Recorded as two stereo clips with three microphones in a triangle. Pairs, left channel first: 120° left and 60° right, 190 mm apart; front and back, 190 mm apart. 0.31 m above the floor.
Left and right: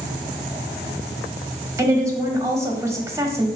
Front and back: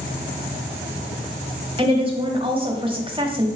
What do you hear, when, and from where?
1.8 s a woman speaking: 130° right, 1.5 m